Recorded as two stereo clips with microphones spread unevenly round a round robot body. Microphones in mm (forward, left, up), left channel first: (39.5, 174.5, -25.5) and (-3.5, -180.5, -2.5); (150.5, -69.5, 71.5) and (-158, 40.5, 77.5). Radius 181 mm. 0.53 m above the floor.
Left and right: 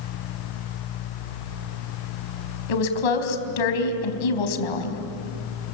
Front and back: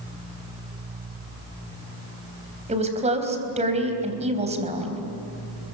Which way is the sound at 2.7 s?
90° left.